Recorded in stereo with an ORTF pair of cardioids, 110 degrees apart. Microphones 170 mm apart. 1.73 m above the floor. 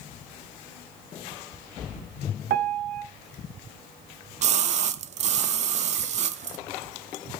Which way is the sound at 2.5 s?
65° right.